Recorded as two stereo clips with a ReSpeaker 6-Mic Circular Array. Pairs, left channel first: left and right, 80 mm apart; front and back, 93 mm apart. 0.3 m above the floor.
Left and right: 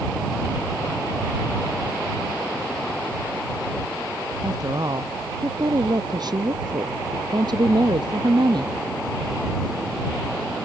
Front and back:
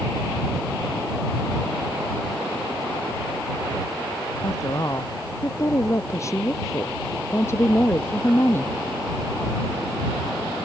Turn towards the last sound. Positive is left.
turn(degrees=-65)